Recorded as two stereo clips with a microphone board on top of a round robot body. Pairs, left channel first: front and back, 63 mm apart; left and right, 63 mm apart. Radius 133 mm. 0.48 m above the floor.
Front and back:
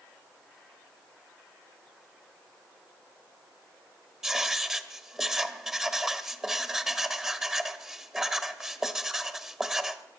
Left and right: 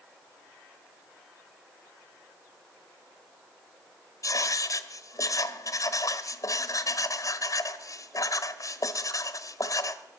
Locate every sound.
4.2 s writing: 100° left, 1.2 m